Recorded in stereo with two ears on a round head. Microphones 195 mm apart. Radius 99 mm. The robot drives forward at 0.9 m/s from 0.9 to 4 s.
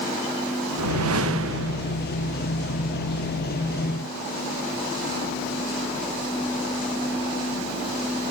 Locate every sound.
0.8 s a whoosh: 75° right (ahead or behind), 1.3 m; by 2.1 s 50° right (ahead or behind), 1.6 m